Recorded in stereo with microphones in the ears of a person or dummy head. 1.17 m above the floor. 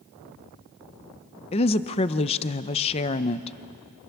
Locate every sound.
1.5 s a woman speaking: 30° left (ahead or behind), 0.7 m